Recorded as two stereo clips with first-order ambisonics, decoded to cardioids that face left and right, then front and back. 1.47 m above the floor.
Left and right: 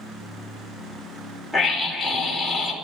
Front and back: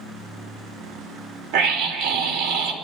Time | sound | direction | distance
1.5 | a scream | 175° right | 3 m